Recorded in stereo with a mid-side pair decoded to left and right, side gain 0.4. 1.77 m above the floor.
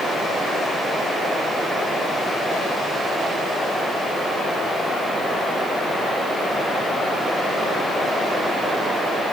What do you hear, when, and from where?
Only background noise.